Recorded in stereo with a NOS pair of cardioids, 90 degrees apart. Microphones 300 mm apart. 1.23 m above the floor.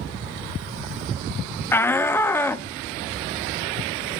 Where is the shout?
10° left, 0.7 m.